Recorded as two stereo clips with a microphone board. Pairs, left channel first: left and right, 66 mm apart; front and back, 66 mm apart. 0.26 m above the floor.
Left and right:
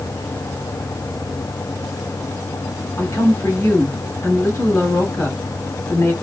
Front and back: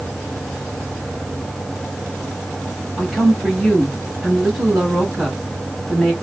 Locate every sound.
3.0 s a woman speaking: 90° left, 1.6 m